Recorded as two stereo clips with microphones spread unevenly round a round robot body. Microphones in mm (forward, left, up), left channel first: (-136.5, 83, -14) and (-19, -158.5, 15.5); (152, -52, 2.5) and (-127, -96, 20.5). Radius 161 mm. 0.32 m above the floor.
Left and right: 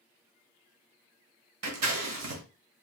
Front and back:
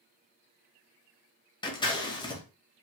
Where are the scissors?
60° right, 1.0 m.